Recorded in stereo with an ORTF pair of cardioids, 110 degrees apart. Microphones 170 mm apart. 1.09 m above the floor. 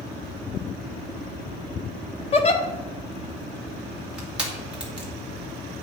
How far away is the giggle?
About 1.1 m.